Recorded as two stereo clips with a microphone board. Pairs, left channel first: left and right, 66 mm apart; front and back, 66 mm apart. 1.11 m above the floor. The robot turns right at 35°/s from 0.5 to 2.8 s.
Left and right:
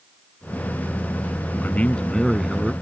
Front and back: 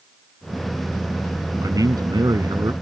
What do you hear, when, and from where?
1.6 s a man speaking: 155° left; by 2.7 s 165° right